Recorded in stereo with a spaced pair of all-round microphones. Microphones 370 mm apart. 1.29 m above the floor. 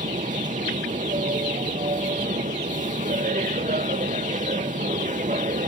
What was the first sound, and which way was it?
A machine running, 20° right (ahead or behind).